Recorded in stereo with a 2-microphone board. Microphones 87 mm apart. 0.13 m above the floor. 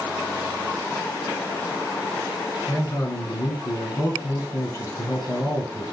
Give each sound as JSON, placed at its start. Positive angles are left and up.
{"t": 2.7, "sound": "a man speaking", "side_deg": 35, "distance_m": 1.7}